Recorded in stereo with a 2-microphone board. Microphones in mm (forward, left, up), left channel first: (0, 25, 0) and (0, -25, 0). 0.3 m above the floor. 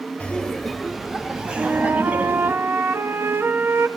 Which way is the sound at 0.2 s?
25° left (ahead or behind).